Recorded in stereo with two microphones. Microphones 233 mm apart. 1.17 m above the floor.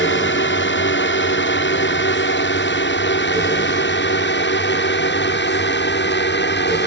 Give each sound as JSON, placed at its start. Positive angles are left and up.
{"t": 0.0, "sound": "a drone", "side_deg": 55}